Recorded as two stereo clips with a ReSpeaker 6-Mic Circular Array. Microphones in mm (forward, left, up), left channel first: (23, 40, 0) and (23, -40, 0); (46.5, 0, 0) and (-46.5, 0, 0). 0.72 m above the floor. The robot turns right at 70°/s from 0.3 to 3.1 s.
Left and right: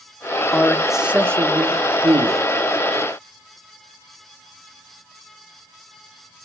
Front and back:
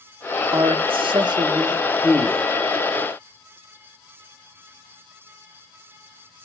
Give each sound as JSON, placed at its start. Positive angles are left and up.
{"t": 0.5, "sound": "a man speaking", "azimuth_deg": 155, "distance_m": 1.1}